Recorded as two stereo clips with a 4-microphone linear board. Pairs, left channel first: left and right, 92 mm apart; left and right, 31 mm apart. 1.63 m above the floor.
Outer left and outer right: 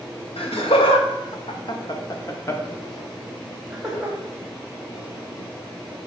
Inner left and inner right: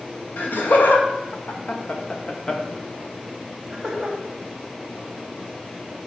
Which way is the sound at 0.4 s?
80° left.